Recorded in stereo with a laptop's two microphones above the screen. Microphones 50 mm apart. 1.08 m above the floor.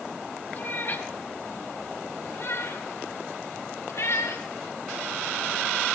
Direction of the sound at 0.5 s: 40° left (ahead or behind).